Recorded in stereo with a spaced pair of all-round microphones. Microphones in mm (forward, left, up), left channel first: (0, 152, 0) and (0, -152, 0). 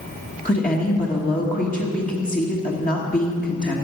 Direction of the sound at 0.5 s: 25° left (ahead or behind).